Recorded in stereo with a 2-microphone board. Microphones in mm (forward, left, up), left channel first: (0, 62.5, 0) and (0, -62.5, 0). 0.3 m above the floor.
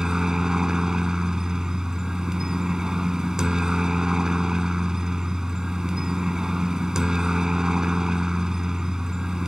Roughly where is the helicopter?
Centre.